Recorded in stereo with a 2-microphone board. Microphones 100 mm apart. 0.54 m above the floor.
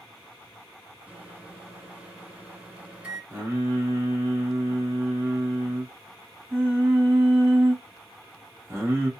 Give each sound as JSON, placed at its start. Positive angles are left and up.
{"t": 1.1, "sound": "a microwave", "side_deg": -15, "distance_m": 0.8}
{"t": 3.3, "sound": "singing", "side_deg": -30, "distance_m": 1.0}